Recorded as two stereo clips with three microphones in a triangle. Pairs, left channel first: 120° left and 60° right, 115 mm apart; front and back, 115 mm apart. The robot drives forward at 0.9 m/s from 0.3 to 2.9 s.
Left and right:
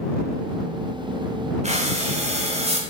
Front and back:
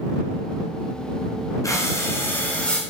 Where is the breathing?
60° right, 3 m; by 2.8 s 85° right, 2.5 m.